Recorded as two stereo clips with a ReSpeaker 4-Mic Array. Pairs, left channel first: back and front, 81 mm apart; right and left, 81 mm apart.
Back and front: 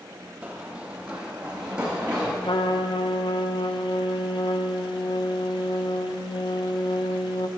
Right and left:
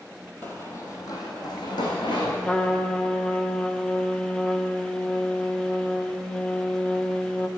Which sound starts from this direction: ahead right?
Running footsteps, at 0.4 s.